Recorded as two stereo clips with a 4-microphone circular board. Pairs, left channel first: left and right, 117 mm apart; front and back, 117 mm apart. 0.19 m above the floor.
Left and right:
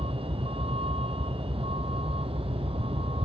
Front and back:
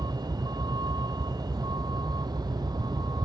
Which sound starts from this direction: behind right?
A vehicle, at 0.0 s.